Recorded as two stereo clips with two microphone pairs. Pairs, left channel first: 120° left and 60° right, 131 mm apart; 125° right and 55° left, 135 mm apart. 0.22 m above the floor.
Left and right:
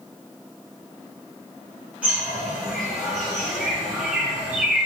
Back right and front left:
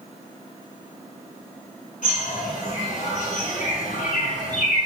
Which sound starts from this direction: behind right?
A bird, at 2.0 s.